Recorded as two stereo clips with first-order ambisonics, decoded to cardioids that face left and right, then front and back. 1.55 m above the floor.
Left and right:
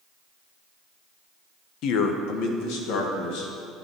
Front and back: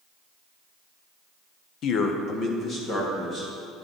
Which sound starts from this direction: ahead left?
A man speaking, at 1.8 s.